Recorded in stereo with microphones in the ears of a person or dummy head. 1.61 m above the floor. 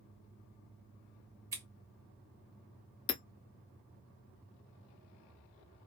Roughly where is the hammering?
Left.